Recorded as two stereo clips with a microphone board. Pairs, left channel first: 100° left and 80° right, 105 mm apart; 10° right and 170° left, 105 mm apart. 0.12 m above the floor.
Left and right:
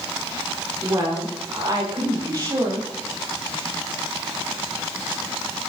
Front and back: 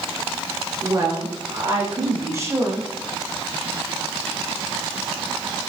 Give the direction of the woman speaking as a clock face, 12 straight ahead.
5 o'clock.